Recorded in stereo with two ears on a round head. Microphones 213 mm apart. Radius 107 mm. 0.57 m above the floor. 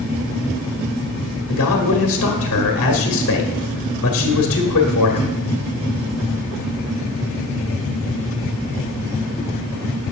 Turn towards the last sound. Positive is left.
turn(degrees=60)  # may be behind; listen again after turning